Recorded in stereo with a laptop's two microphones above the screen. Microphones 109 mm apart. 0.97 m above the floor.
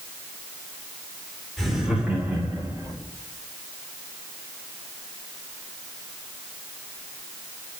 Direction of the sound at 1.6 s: Centre (ahead or behind).